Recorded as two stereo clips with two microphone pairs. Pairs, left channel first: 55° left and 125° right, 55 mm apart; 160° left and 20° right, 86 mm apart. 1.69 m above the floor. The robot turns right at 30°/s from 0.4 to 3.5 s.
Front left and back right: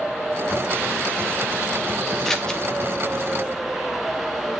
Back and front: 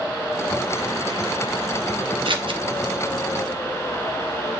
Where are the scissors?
35° right, 1.2 m; by 2.6 s 20° right, 1.2 m.